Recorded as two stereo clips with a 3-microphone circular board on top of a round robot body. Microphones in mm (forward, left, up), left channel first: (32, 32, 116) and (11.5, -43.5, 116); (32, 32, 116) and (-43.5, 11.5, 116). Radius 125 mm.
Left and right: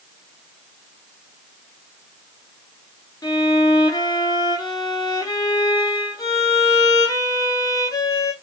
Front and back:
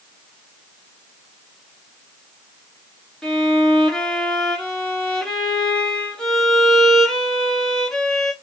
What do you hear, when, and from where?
3.2 s a violin: 95° left, 1.8 m